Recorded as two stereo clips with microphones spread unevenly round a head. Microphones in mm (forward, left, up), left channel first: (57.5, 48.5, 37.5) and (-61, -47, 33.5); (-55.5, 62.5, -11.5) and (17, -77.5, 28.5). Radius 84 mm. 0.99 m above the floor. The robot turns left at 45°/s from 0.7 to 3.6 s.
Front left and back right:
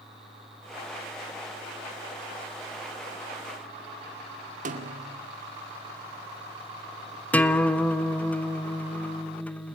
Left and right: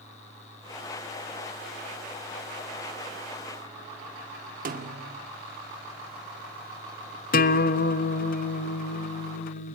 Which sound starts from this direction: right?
A snare drum, at 4.7 s.